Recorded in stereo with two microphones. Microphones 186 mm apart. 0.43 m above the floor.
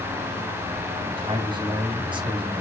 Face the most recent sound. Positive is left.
turn(degrees=-25)  # may be behind; listen again after turning